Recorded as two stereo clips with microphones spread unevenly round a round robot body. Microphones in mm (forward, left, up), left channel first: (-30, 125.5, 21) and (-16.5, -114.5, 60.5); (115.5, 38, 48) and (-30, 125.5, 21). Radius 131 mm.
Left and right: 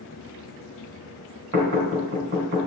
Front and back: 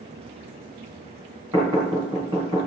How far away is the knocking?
About 3.5 m.